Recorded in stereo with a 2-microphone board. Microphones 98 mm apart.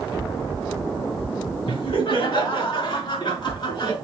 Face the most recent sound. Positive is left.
turn(degrees=50)  # may be behind; listen again after turning